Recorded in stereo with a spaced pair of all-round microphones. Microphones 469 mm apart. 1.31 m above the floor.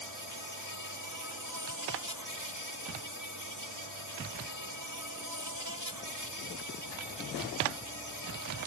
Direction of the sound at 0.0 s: 45° right (ahead or behind).